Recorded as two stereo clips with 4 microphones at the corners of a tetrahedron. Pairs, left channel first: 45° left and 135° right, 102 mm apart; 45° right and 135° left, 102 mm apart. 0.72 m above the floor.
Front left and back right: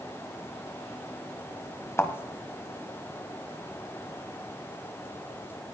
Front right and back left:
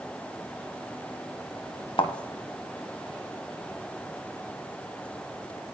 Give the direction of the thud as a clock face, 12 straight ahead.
1 o'clock.